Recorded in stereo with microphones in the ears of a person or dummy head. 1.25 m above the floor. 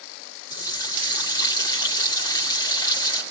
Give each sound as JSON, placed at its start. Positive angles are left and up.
{"t": 0.5, "sound": "a running tap", "side_deg": 25, "distance_m": 1.3}